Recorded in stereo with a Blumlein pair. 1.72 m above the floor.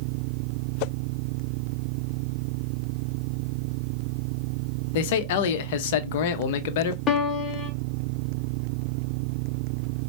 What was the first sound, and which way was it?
A man speaking, 50° left.